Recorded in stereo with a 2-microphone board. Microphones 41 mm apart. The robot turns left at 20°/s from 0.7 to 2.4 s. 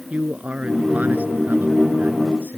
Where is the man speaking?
45° right; by 2.6 s 75° right.